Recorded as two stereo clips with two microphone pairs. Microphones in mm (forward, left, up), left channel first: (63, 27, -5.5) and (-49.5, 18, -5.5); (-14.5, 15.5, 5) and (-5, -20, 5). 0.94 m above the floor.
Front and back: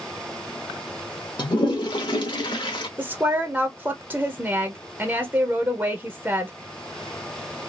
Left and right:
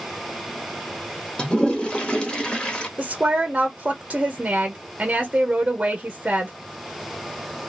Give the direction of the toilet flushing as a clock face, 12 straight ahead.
11 o'clock.